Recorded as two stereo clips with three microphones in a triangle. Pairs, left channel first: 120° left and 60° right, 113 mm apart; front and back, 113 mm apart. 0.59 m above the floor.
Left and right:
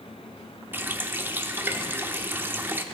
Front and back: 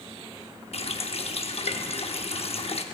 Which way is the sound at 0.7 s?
10° left.